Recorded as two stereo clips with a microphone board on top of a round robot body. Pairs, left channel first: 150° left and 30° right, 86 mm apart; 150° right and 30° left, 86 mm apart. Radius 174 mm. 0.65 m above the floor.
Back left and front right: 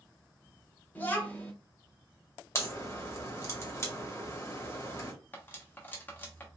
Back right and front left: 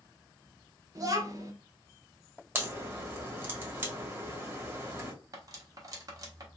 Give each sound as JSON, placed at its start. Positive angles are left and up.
{"t": 0.9, "sound": "a child speaking", "azimuth_deg": 80, "distance_m": 1.2}
{"t": 2.5, "sound": "a crack", "azimuth_deg": 95, "distance_m": 2.0}
{"t": 5.3, "sound": "cutlery clinking", "azimuth_deg": 80, "distance_m": 1.0}